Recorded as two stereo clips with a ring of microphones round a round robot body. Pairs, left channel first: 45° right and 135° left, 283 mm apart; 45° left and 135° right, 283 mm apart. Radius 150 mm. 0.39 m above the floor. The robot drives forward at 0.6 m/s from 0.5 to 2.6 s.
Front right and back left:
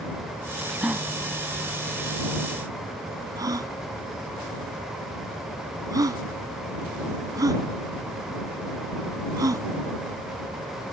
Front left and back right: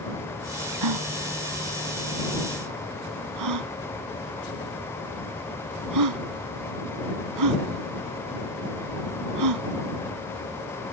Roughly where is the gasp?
Behind right.